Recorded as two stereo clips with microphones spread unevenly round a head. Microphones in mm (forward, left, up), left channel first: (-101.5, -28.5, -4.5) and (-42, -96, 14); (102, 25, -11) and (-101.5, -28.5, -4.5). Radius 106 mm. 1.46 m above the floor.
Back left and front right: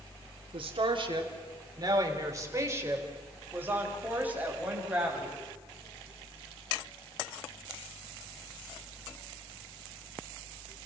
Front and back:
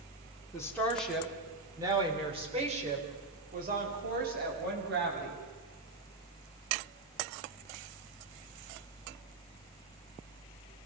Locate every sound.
0.5 s a woman speaking: 60° right, 3 m; by 5.4 s 125° right, 8 m